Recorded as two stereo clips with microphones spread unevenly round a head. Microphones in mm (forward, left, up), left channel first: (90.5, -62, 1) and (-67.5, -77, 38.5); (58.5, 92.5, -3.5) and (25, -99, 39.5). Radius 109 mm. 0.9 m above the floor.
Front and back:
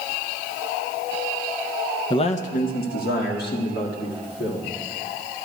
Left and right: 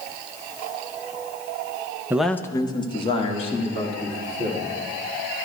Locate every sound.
2.1 s a man speaking: 15° right, 0.5 m; by 4.7 s 25° left, 3.5 m